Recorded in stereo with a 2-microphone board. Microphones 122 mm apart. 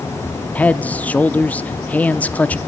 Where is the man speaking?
15° left (ahead or behind), 0.7 m.